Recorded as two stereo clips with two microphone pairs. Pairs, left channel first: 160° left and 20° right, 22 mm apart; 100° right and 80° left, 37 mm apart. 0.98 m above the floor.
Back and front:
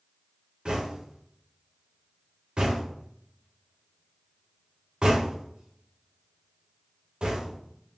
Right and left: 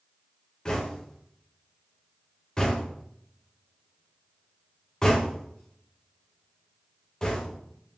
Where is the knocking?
35° right, 0.8 m.